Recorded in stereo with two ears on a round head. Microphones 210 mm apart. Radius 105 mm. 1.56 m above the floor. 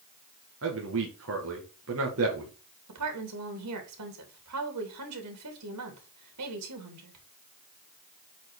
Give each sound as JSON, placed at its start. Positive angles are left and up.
{"t": 0.6, "sound": "a man speaking", "side_deg": -60, "distance_m": 1.9}
{"t": 2.9, "sound": "a woman speaking", "side_deg": -85, "distance_m": 3.0}